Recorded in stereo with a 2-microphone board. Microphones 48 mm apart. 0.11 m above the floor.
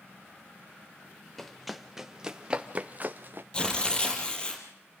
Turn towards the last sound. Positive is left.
turn(degrees=20)  # may be behind; listen again after turning